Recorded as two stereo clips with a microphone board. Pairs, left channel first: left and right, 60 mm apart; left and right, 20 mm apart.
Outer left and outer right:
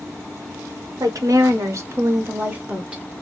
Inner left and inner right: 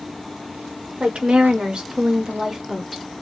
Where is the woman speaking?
70° right (ahead or behind), 1.1 m; by 3.0 s 15° right (ahead or behind), 1.2 m.